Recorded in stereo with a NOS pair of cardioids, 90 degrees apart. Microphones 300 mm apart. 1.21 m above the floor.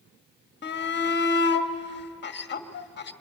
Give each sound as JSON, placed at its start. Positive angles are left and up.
{"t": 0.6, "sound": "a shout", "azimuth_deg": 35, "distance_m": 1.8}